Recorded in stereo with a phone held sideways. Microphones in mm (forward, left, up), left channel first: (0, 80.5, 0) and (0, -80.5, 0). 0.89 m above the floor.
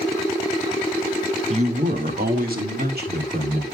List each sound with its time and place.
1.5 s a man speaking: 40° right (ahead or behind), 0.8 m; by 3.6 s 80° right, 3 m